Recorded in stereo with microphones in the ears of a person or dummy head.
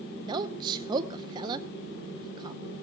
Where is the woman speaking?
25° right (ahead or behind), 0.7 m.